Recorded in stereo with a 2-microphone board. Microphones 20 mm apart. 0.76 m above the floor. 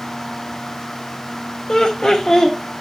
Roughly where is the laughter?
Left.